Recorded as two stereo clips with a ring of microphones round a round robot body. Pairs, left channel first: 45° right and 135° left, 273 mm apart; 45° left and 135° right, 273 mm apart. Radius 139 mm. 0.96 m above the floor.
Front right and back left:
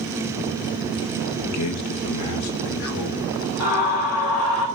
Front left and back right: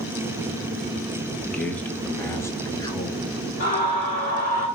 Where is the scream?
15° right, 2.5 m.